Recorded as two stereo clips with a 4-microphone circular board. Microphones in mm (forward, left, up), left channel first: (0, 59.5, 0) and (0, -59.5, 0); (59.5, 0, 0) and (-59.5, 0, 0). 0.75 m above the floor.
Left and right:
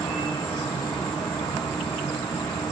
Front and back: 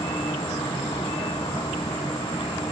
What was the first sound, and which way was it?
An insect, 45° left.